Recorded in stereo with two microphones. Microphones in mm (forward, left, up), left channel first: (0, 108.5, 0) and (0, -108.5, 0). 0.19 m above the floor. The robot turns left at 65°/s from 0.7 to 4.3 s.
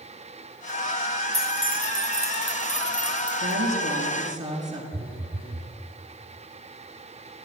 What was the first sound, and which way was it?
Keys jangling, 45° right (ahead or behind).